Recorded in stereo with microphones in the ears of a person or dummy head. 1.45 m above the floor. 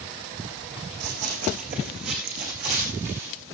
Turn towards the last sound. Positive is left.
turn(degrees=-50)  # may be behind; listen again after turning